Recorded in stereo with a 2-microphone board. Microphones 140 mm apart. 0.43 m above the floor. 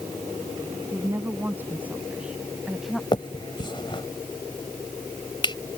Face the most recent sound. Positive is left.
turn(degrees=35)  # may be behind; listen again after turning